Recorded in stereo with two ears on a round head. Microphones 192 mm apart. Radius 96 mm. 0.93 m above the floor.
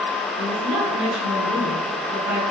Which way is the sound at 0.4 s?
60° right (ahead or behind).